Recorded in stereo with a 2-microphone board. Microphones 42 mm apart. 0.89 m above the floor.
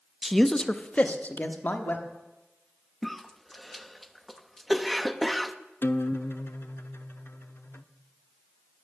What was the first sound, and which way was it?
A man speaking, 5° right (ahead or behind).